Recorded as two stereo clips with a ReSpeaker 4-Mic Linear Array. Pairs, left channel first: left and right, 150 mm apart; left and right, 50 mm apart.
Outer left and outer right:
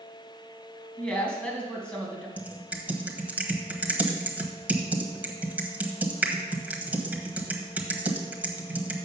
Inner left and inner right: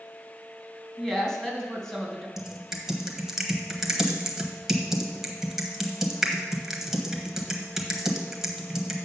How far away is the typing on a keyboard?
About 1.1 m.